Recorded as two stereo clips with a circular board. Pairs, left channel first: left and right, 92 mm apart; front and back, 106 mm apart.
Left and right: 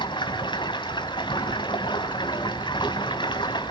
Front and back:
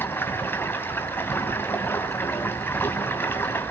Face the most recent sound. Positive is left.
turn(degrees=70)